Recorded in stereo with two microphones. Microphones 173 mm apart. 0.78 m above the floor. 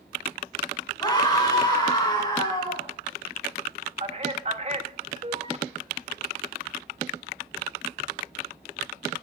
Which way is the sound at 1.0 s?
25° left (ahead or behind).